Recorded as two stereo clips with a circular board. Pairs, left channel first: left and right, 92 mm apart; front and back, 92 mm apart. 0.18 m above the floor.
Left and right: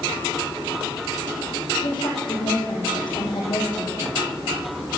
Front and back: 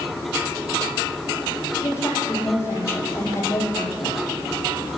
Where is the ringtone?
I don't hear a ringtone.